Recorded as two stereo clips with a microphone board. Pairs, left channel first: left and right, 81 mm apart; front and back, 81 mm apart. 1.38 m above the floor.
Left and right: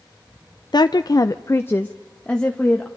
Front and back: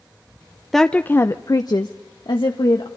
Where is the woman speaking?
85° left, 0.5 m; by 2.9 s 10° left, 1.3 m.